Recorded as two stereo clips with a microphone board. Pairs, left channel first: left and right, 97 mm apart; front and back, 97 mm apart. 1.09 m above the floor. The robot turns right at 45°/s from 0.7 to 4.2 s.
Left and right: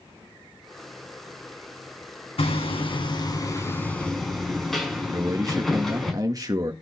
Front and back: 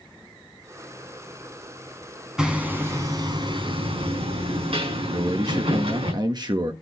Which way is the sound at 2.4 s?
95° left.